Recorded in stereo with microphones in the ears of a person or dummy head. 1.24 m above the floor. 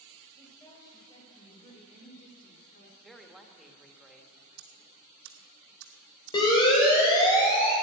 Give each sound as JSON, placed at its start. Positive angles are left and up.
{"t": 0.4, "sound": "a woman speaking", "side_deg": 10, "distance_m": 5.0}
{"t": 3.0, "sound": "a woman speaking", "side_deg": 0, "distance_m": 1.5}
{"t": 4.6, "sound": "ticking", "side_deg": -80, "distance_m": 1.6}
{"t": 6.3, "sound": "a siren", "side_deg": 20, "distance_m": 5.0}